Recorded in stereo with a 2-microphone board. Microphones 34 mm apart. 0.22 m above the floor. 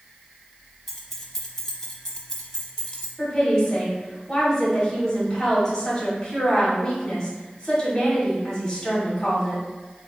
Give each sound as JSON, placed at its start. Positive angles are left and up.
{"t": 0.9, "sound": "keys jangling", "side_deg": 10, "distance_m": 0.8}
{"t": 3.2, "sound": "a woman speaking", "side_deg": 10, "distance_m": 1.6}